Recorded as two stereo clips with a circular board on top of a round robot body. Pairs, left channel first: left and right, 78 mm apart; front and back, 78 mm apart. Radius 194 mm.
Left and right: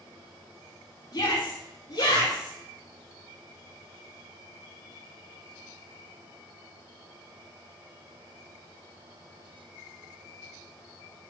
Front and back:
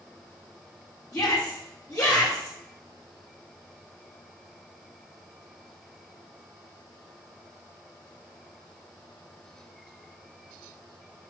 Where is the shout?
50° left, 4.5 m.